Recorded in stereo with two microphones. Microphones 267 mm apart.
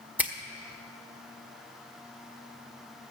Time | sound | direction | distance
0.2 | a finger snap | 5° right (ahead or behind) | 0.9 m